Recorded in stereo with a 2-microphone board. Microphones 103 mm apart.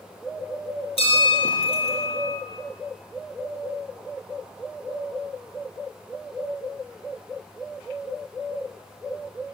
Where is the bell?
70° left (ahead or behind), 3 m.